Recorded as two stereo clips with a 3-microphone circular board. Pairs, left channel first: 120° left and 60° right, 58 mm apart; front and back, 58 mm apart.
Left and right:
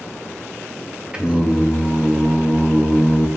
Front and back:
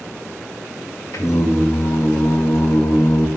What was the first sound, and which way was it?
Singing, 10° left.